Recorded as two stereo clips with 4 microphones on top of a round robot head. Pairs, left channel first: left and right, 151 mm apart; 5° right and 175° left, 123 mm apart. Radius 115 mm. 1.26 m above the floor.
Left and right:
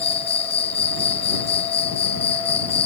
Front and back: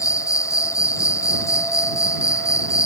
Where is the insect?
55° left.